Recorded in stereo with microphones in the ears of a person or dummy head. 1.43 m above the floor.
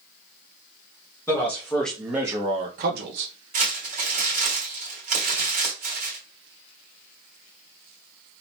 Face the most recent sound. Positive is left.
turn(degrees=-45)  # may be behind; listen again after turning